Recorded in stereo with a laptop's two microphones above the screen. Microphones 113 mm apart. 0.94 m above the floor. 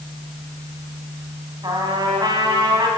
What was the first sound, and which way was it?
A trumpet, 40° right (ahead or behind).